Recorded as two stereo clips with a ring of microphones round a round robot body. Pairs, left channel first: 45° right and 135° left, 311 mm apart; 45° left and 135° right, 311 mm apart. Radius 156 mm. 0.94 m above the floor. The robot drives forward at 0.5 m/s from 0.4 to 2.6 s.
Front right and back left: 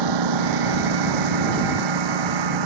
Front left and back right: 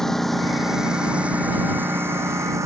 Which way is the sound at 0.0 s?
135° left.